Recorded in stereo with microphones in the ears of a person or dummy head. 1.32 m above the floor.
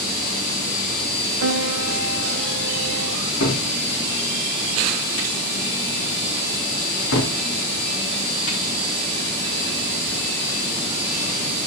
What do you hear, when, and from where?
1.4 s a piano: 80° right, 1.2 m
3.4 s a cupboard door: 70° left (ahead or behind), 3.5 m